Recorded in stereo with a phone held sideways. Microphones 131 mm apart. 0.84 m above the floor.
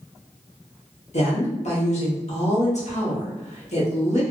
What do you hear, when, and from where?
1.1 s a woman speaking: 60° left (ahead or behind), 1.0 m